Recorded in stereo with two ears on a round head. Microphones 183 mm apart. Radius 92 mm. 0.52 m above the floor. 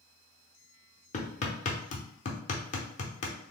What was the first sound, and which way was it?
Hammering, 35° left (ahead or behind).